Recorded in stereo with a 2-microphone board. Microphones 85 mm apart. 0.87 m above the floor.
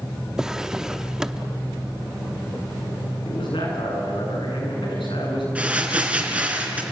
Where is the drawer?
5° right (ahead or behind), 0.5 m.